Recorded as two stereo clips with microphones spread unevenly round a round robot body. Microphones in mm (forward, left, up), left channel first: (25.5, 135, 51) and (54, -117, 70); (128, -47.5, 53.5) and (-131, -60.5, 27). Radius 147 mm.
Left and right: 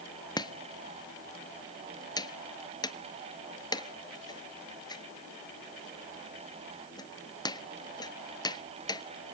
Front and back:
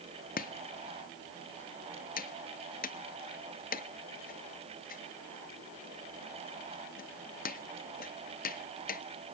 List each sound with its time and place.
0.4 s chopping: 40° left, 1.2 m